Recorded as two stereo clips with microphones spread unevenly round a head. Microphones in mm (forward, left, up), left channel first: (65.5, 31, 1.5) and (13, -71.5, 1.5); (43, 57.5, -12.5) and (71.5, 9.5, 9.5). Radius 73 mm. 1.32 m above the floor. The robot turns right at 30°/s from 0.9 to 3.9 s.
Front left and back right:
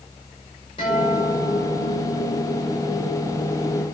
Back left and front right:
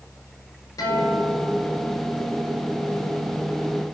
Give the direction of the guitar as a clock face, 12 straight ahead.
8 o'clock.